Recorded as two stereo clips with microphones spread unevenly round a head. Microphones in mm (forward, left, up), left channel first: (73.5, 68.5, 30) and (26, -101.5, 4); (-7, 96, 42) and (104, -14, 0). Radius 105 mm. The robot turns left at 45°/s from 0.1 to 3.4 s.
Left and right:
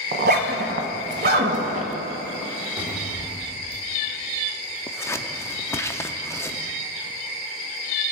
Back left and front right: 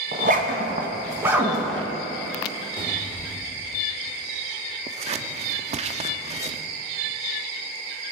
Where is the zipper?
85° right, 1.1 m; by 1.9 s 165° right, 1.1 m.